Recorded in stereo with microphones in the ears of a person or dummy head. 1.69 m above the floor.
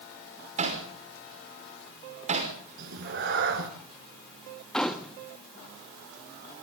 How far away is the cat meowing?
About 2.5 m.